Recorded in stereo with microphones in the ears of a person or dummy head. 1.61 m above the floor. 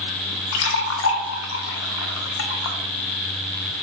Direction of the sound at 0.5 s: 75° left (ahead or behind).